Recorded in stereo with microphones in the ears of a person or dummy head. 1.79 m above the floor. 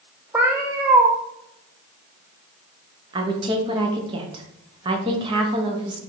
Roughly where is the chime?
I don't hear a chime.